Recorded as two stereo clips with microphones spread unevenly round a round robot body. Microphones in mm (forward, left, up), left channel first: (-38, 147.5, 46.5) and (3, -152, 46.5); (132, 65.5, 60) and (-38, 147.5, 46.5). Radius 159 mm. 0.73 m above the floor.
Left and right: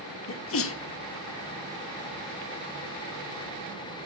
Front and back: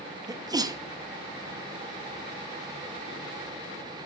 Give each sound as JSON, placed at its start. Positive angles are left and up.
{"t": 0.3, "sound": "a sneeze", "azimuth_deg": 100, "distance_m": 1.4}